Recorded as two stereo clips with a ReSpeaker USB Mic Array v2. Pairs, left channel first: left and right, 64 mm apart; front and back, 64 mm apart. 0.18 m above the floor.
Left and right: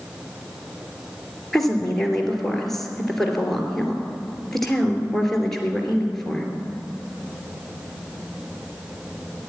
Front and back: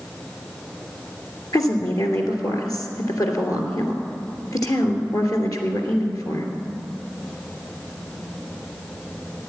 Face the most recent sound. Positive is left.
turn(degrees=5)